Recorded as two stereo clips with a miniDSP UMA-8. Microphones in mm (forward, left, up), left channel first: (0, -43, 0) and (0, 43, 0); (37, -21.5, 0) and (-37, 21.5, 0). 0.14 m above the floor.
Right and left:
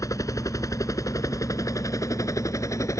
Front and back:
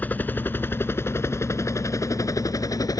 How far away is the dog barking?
No dog barking in this recording.